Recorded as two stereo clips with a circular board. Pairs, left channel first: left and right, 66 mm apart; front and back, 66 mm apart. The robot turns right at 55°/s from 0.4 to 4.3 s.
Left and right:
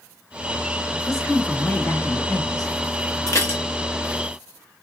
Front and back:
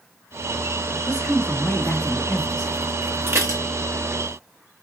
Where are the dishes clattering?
130° left, 0.8 m; by 3.6 s 150° left, 0.8 m.